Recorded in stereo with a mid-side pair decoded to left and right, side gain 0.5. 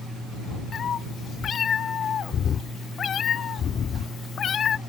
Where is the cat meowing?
50° left; by 4.8 s 55° left.